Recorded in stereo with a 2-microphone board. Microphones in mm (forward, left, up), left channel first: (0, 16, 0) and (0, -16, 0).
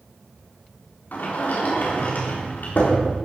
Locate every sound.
1.1 s a sliding door: 65° left (ahead or behind), 4 m